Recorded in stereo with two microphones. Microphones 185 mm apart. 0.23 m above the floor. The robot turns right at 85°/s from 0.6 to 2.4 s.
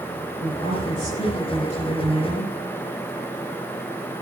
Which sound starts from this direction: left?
A woman speaking, at 0.4 s.